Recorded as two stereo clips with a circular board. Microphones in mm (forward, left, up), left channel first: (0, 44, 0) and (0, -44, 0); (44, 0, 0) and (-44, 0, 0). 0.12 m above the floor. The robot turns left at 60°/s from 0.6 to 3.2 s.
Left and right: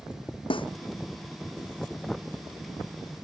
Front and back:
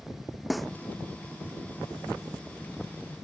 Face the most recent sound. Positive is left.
turn(degrees=-65)